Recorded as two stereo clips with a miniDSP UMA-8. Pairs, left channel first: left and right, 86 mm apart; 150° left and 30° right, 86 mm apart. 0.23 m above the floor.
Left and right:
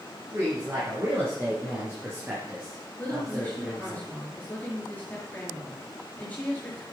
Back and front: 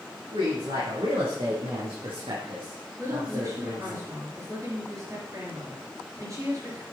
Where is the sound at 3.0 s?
20° left, 5 m.